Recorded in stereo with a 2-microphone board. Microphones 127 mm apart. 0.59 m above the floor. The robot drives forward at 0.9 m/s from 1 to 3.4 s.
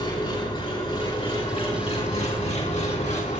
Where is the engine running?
45° left (ahead or behind), 4.5 m; by 3.4 s 75° left (ahead or behind), 3 m.